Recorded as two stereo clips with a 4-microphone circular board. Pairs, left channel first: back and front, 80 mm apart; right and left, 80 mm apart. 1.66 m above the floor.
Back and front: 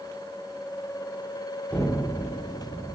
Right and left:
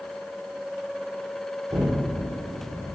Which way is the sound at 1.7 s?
115° left.